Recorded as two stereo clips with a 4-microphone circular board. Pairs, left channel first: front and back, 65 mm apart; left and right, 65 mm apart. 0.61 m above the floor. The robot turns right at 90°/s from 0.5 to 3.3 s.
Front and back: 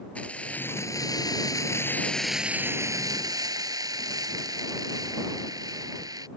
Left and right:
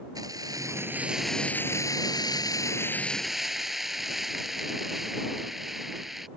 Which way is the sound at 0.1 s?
70° right.